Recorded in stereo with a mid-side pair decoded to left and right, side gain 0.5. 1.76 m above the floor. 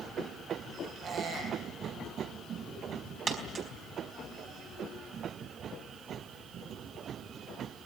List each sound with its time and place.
1.0 s a squeak: 60° right, 6.5 m
3.3 s a dropped coin: 45° right, 4.5 m